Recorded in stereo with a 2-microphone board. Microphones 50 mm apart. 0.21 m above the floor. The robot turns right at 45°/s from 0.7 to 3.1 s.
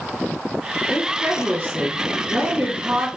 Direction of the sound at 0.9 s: 165° right.